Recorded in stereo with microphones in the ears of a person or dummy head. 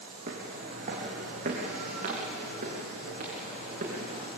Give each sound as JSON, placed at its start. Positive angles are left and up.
{"t": 0.3, "sound": "footsteps", "side_deg": -40, "distance_m": 3.0}